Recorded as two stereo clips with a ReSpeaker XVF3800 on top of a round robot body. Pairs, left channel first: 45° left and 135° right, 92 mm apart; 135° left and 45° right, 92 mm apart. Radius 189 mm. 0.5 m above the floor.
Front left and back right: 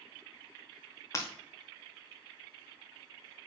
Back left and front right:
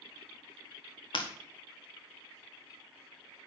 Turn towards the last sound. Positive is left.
turn(degrees=105)